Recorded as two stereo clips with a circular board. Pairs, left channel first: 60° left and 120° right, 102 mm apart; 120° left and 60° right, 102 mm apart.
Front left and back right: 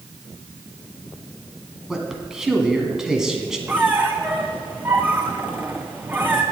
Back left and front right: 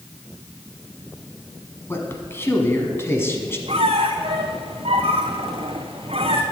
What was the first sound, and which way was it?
A man speaking, 160° left.